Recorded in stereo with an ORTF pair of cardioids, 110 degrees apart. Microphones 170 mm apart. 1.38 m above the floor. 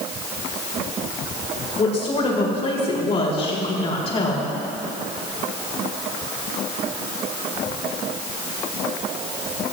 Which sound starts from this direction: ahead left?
A woman speaking, at 1.8 s.